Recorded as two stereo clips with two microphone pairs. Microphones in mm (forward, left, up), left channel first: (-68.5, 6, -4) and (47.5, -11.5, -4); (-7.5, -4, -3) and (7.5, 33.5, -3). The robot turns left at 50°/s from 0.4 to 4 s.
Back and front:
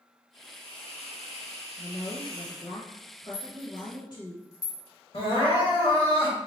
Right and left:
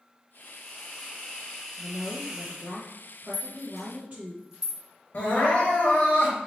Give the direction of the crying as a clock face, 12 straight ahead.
5 o'clock.